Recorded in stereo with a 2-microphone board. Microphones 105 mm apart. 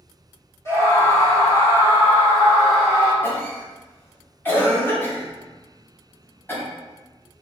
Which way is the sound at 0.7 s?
25° left (ahead or behind).